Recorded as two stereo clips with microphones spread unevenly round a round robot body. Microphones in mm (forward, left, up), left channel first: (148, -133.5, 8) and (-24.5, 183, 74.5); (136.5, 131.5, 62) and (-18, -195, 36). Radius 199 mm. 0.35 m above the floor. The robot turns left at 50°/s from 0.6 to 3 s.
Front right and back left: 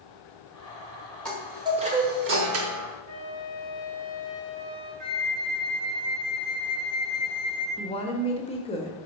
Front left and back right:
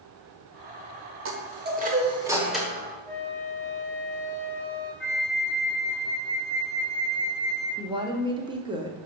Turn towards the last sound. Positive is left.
turn(degrees=-65)